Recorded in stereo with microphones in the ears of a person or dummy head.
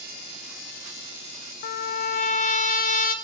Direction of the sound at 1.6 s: 45° left (ahead or behind).